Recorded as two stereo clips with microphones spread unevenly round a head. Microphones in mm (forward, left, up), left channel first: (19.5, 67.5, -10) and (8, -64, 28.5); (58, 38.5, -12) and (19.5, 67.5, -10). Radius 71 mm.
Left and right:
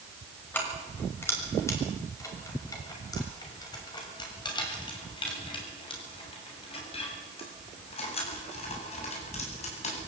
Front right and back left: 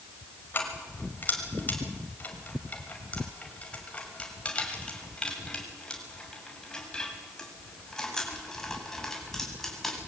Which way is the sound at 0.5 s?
5° left.